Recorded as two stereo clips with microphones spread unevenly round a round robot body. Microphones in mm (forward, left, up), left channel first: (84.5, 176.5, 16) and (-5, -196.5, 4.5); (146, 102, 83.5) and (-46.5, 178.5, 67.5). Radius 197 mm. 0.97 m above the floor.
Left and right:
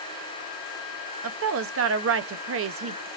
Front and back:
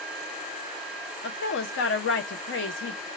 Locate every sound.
1.2 s a woman speaking: 50° right, 0.6 m